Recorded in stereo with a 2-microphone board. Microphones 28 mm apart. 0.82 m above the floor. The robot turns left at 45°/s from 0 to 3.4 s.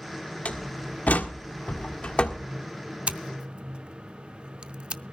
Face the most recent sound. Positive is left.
turn(degrees=-40)  # may be behind; listen again after turning